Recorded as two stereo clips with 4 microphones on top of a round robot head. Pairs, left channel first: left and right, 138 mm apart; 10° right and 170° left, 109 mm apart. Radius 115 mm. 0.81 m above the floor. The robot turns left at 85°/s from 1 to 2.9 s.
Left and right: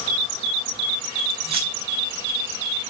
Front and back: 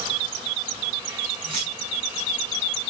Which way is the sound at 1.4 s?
130° right.